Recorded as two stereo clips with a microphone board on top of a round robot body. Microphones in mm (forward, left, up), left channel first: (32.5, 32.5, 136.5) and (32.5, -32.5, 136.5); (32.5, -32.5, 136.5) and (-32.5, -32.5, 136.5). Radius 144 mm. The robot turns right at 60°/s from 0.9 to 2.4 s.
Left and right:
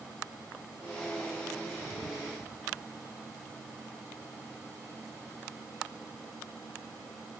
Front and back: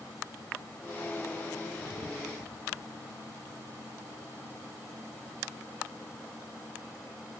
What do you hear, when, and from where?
Only background noise.